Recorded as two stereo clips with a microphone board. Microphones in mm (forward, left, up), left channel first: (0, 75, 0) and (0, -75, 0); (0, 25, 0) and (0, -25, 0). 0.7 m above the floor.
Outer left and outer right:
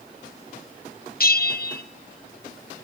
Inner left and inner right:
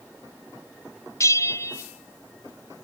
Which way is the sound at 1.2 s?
80° left.